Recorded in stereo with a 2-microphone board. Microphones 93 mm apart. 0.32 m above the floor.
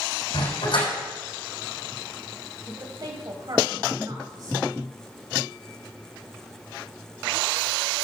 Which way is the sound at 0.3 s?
70° left (ahead or behind).